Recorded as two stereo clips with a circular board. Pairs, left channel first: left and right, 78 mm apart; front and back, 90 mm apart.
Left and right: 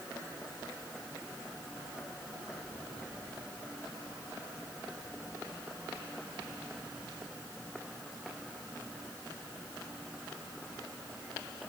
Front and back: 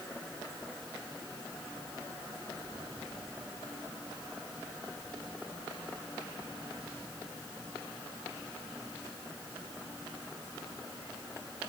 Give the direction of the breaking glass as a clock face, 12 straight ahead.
I don't hear breaking glass.